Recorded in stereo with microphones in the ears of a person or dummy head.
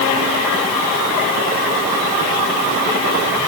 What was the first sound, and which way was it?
Only background noise.